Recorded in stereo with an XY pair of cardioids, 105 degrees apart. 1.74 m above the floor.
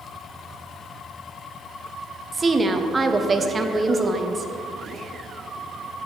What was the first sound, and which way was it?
A woman speaking, 30° right.